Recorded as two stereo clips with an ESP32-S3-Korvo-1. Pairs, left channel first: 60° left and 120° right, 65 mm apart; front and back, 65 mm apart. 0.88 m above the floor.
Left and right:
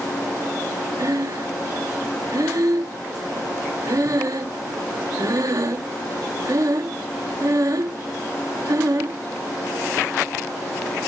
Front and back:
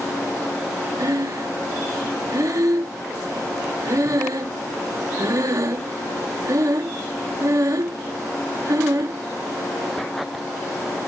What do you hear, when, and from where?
1.0 s breathing: 150° right